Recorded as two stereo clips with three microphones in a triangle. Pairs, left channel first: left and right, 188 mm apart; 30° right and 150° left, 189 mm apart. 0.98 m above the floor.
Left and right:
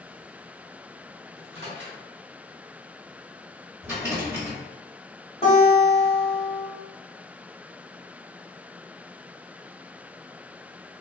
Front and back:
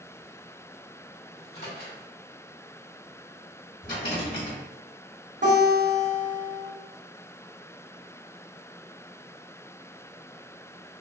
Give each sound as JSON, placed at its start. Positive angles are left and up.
{"t": 1.4, "sound": "a microwave", "azimuth_deg": -65, "distance_m": 1.4}
{"t": 3.8, "sound": "a rattle", "azimuth_deg": -10, "distance_m": 1.5}
{"t": 5.4, "sound": "a guitar", "azimuth_deg": 145, "distance_m": 1.5}